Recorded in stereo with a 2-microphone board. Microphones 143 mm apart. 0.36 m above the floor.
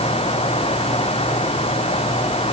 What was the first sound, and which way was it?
Only background noise.